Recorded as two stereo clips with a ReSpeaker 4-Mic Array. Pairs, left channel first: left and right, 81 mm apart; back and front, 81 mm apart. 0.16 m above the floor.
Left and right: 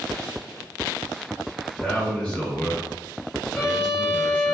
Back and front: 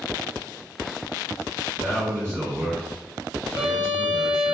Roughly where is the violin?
Ahead.